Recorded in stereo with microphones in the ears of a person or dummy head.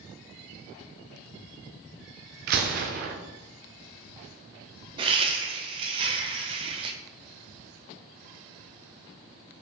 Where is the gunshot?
50° right (ahead or behind), 0.7 m.